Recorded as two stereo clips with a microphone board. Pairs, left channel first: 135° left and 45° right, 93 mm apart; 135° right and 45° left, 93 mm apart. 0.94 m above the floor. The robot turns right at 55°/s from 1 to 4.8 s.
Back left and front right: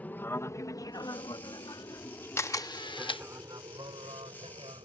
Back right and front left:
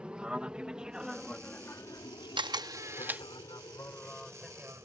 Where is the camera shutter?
75° left; by 3.2 s 120° left.